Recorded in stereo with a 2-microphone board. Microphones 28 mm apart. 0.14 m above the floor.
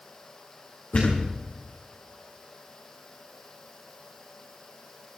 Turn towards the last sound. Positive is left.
turn(degrees=65)  # may be behind; listen again after turning